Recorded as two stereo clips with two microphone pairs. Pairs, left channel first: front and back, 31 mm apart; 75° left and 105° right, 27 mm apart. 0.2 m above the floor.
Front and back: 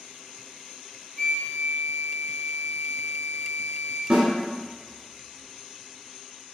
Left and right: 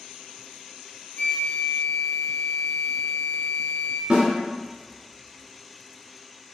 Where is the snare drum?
145° right, 1.0 m.